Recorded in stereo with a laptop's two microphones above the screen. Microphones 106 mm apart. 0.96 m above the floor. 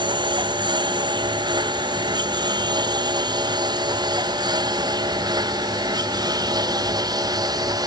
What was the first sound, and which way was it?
A lawn mower, 45° right (ahead or behind).